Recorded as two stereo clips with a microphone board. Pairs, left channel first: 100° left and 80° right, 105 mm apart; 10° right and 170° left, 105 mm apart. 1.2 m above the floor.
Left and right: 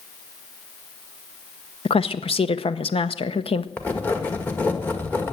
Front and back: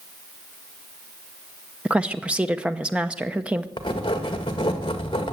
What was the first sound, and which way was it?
A woman speaking, 90° left.